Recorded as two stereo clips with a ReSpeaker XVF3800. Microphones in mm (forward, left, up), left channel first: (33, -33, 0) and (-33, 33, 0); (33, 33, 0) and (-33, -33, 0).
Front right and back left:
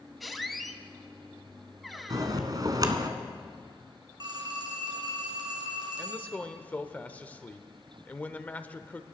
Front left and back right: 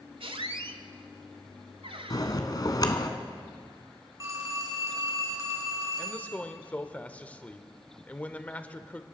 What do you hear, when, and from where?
0.2 s a squeak: 135° right, 0.8 m
2.1 s a bell: 90° left, 1.1 m
4.2 s a phone ringing: 170° left, 3 m
6.0 s a man speaking: straight ahead, 0.8 m